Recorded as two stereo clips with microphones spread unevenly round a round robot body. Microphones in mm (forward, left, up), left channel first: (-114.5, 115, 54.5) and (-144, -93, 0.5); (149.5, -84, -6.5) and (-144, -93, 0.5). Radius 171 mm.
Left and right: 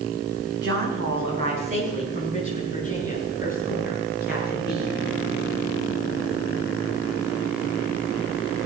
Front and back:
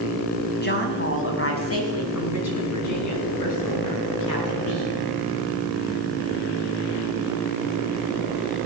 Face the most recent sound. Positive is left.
turn(degrees=-10)